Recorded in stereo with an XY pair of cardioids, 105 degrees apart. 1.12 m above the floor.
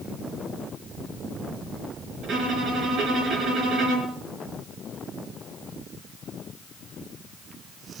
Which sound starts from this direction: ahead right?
A violin, at 2.2 s.